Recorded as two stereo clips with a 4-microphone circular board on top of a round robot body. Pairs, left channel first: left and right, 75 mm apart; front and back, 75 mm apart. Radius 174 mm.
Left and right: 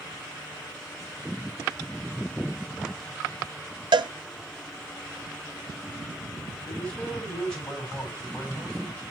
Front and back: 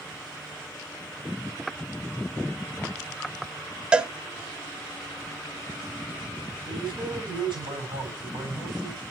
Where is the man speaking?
165° left, 7.5 m.